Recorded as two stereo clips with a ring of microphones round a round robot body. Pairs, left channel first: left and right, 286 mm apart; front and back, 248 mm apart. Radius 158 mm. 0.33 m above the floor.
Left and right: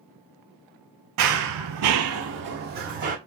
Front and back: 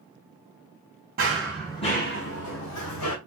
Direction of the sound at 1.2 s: 120° right.